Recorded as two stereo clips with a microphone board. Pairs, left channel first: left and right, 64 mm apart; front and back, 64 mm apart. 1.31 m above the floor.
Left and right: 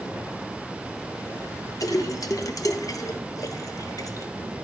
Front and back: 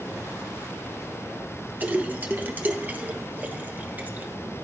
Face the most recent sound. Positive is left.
turn(degrees=115)